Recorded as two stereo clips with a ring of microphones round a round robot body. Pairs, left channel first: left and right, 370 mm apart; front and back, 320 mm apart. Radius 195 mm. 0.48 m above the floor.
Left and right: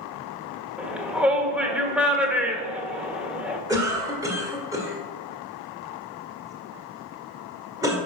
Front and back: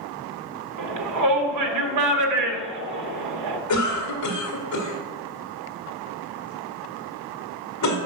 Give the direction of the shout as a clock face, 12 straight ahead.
6 o'clock.